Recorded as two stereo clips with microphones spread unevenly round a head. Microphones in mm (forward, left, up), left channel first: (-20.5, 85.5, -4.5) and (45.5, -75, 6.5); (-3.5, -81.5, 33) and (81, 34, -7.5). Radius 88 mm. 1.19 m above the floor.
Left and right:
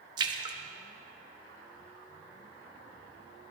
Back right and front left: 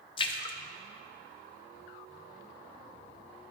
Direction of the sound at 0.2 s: 120° right.